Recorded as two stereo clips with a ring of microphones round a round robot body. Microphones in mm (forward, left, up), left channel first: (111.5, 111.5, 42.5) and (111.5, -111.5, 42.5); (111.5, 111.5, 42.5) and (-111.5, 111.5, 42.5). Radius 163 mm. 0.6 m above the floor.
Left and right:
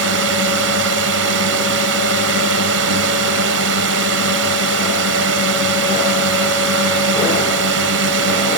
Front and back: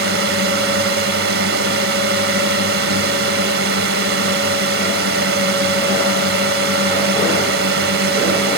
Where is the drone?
130° right.